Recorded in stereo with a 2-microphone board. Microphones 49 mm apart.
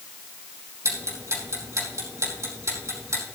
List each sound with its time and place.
0.8 s ticking: 80° right, 4.5 m